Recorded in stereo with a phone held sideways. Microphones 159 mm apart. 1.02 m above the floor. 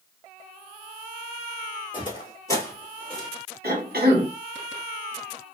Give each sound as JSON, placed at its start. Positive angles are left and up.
{"t": 1.9, "sound": "footsteps", "side_deg": 30, "distance_m": 1.2}
{"t": 3.6, "sound": "a cough", "side_deg": -80, "distance_m": 1.2}